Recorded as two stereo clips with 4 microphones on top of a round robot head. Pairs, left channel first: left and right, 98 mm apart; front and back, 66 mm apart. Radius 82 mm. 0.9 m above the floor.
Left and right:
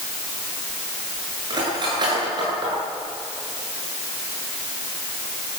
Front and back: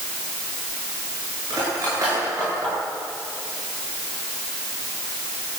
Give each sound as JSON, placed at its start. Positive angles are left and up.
{"t": 1.5, "sound": "cutlery clinking", "azimuth_deg": -130, "distance_m": 9.5}